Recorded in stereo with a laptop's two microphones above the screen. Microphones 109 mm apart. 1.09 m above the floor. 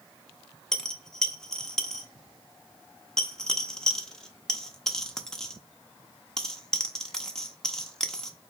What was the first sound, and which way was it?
A dropped coin, 5° left (ahead or behind).